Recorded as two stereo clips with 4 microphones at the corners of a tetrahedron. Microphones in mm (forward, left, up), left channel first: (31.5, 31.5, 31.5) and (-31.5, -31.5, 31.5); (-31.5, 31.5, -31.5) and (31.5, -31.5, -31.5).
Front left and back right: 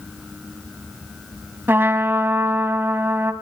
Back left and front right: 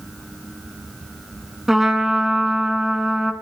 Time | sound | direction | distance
1.7 | a trumpet | 125° right | 1.4 m